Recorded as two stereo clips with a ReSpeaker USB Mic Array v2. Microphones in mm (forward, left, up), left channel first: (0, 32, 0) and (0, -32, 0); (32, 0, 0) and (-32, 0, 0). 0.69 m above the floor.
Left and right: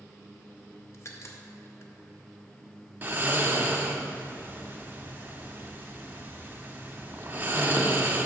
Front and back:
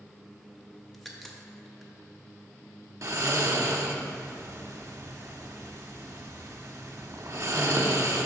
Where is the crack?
85° left, 0.7 m.